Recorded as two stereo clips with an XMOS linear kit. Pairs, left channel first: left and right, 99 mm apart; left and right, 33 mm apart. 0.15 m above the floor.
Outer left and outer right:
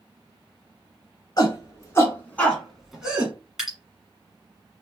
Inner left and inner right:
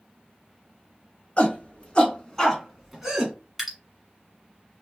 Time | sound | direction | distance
1.4 | a shout | 40° left (ahead or behind) | 1.9 m
3.6 | dripping | 5° right (ahead or behind) | 1.4 m